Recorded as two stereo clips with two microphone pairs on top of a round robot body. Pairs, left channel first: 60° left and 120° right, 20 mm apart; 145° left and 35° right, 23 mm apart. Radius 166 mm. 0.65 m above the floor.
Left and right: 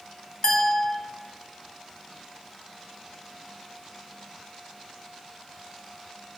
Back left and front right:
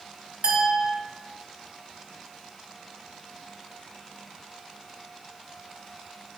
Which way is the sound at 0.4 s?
5° left.